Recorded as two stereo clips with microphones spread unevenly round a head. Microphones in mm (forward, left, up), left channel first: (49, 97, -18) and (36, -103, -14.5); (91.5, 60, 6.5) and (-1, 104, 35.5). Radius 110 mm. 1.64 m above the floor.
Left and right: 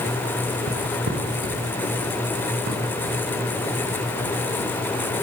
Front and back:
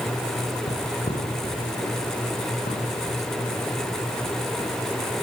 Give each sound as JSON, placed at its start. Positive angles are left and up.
{"t": 0.7, "sound": "footsteps", "azimuth_deg": -70, "distance_m": 7.0}